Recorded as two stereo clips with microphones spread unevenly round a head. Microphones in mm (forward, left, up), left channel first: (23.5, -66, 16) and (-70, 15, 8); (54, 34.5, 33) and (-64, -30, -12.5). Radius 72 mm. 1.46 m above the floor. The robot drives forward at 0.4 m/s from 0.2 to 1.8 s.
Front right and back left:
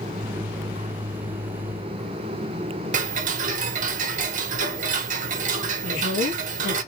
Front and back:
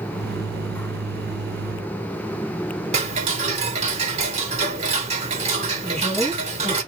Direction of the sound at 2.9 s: 165° left.